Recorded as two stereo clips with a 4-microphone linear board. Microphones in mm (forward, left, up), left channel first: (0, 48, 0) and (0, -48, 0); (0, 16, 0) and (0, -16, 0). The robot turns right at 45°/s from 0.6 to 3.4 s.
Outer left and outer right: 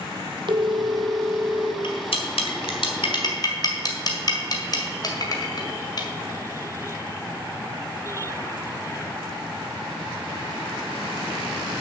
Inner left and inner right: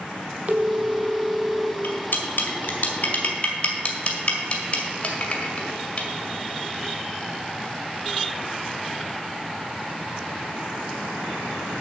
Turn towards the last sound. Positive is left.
turn(degrees=40)  # may be behind; listen again after turning